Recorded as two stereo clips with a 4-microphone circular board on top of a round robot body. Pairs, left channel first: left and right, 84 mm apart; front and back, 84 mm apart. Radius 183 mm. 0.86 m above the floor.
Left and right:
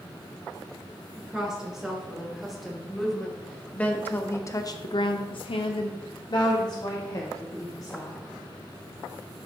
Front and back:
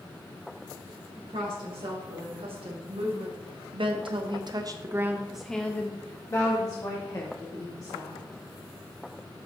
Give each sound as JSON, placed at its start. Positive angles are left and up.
{"t": 1.2, "sound": "a woman speaking", "azimuth_deg": -175, "distance_m": 3.0}